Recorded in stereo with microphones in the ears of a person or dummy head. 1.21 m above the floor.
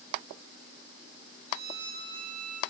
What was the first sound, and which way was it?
A violin, 55° right (ahead or behind).